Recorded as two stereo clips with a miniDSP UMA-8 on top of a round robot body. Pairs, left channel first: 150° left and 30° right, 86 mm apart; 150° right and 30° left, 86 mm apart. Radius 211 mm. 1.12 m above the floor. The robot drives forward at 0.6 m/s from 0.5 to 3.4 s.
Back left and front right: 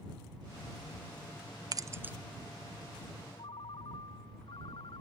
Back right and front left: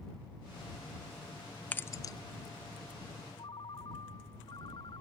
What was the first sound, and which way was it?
Keys jangling, 75° right.